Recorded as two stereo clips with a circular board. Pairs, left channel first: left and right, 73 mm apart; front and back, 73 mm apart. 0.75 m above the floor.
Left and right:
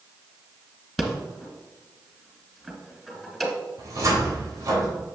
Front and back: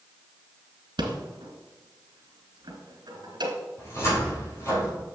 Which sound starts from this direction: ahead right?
A cupboard door, at 3.8 s.